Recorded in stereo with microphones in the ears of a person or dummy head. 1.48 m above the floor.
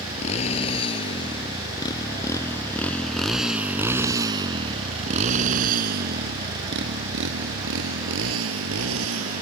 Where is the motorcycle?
40° left (ahead or behind); by 9.4 s 80° right.